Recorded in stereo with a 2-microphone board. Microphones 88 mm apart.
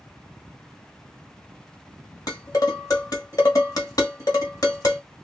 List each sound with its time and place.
2.3 s dishes clattering: 45° left (ahead or behind), 1.3 m